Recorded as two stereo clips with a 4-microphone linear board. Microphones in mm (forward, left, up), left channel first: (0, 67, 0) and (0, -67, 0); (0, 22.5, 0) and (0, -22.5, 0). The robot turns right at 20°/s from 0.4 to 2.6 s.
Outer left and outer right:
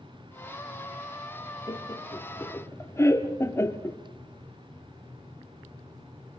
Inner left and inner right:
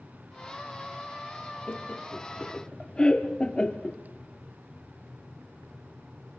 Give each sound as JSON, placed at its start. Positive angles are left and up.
{"t": 1.7, "sound": "laughter", "side_deg": 35, "distance_m": 1.2}